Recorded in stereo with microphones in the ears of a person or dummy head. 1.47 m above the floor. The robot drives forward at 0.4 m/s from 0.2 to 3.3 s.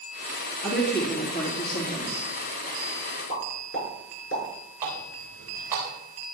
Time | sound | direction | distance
0.6 | a woman speaking | 60° left (ahead or behind) | 3.5 m
3.3 | a pop | 85° left | 8 m
4.8 | a running tap | 20° right (ahead or behind) | 7.5 m